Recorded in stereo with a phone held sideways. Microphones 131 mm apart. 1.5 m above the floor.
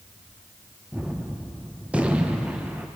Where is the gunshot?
10° right (ahead or behind), 0.6 m.